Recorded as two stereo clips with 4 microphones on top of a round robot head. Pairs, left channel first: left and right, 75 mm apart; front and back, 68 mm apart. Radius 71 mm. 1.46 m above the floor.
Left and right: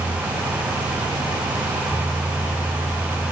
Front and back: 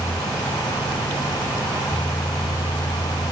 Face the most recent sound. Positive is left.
No sound to turn to.